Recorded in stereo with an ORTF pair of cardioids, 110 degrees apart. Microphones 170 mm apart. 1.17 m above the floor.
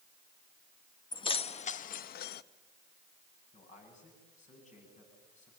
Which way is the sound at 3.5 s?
45° left.